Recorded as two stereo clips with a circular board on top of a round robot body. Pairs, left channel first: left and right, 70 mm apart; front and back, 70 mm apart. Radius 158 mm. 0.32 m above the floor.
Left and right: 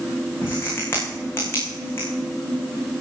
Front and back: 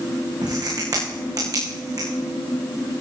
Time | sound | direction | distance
0.4 | a crack | 145° left | 7 m